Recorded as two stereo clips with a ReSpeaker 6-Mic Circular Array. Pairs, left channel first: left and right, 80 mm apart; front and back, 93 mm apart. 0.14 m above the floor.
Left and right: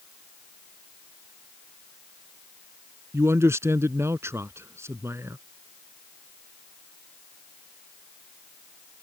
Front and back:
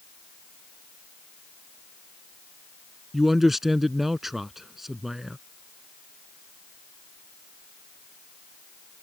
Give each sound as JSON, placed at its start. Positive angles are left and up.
{"t": 3.1, "sound": "a man speaking", "azimuth_deg": -95}